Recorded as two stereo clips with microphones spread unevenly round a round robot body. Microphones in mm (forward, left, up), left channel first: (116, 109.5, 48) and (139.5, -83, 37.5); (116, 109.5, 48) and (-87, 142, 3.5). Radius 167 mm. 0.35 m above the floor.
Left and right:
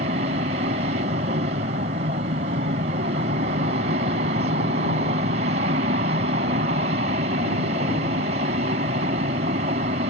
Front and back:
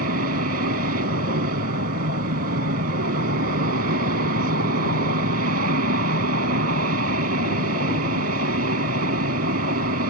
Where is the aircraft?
145° right.